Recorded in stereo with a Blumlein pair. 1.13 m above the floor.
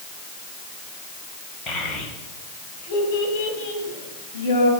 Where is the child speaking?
30° left, 3 m; by 4.7 s 60° left, 4 m.